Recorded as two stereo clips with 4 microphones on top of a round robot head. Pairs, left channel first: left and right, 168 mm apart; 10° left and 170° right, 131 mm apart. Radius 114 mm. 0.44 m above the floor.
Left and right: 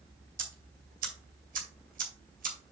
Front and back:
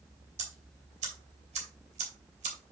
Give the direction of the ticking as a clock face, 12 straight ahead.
4 o'clock.